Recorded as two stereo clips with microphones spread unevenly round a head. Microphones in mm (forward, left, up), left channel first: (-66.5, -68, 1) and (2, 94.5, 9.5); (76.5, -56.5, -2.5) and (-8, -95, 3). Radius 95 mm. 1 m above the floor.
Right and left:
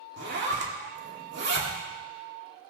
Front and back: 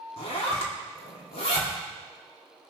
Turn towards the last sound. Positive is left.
turn(degrees=30)